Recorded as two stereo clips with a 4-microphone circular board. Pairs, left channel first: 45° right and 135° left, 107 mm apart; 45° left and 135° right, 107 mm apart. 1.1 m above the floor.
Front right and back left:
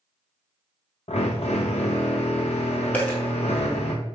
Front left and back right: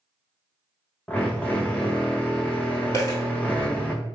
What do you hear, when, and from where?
1.1 s a drill: 30° right, 0.7 m
2.9 s a dropped coin: 20° left, 1.2 m